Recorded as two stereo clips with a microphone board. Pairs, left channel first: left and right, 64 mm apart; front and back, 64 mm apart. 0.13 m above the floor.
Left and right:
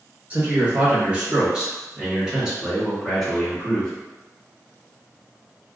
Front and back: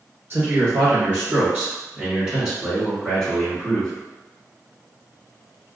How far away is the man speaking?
About 1.9 m.